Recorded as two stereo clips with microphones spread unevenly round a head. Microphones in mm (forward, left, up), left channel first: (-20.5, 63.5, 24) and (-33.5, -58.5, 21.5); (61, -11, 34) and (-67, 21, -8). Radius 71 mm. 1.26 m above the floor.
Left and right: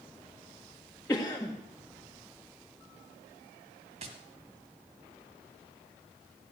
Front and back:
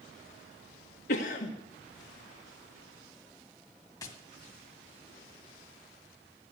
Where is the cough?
10° left, 1.7 m.